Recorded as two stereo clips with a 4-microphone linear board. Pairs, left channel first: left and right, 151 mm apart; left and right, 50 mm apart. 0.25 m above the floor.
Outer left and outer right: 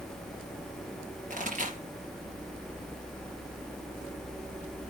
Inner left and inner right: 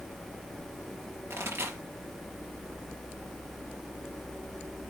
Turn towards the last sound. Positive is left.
turn(degrees=-55)  # may be behind; listen again after turning